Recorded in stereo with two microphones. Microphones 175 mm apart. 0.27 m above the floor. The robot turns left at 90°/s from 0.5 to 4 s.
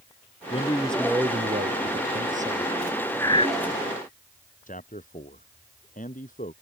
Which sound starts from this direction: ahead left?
A man speaking, at 0.5 s.